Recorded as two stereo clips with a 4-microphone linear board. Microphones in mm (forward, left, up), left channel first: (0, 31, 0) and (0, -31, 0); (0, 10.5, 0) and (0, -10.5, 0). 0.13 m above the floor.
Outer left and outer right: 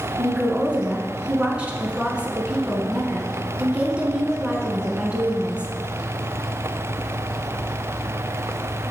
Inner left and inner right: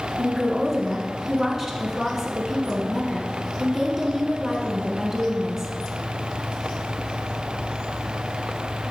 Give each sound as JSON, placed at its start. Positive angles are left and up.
{"t": 0.2, "sound": "a woman speaking", "side_deg": -20, "distance_m": 1.1}